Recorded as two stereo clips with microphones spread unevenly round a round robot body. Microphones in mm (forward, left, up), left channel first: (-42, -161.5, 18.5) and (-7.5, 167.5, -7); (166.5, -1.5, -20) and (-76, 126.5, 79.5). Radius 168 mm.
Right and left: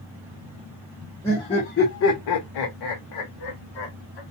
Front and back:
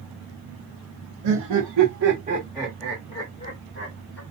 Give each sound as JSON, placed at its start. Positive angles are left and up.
{"t": 1.2, "sound": "laughter", "azimuth_deg": 180, "distance_m": 0.8}